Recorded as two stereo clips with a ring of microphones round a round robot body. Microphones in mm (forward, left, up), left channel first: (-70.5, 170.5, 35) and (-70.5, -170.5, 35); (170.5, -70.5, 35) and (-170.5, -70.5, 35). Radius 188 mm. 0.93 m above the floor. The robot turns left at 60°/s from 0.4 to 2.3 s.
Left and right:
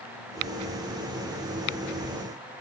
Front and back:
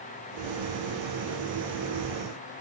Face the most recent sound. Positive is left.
No sound to turn to.